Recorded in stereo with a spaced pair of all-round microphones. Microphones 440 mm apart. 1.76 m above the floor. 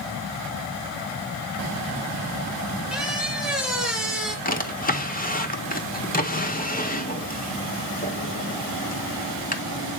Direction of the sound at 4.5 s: 20° left (ahead or behind).